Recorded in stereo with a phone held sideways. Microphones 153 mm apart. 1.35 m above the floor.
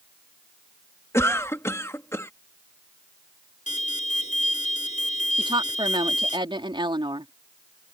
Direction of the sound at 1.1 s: 15° left (ahead or behind).